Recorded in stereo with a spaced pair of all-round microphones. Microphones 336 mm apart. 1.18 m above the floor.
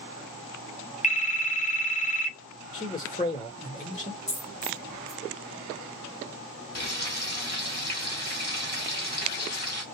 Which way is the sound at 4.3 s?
20° left (ahead or behind).